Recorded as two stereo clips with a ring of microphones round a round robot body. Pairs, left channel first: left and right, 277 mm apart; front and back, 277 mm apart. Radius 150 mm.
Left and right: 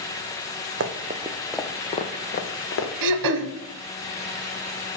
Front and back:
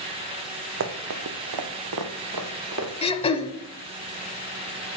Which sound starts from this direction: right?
Throat clearing, at 3.0 s.